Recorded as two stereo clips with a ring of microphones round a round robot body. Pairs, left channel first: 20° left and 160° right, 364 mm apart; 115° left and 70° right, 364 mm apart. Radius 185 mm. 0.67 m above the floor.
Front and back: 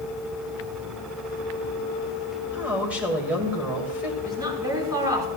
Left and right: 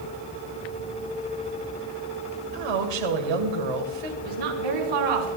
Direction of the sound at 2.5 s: 70° right.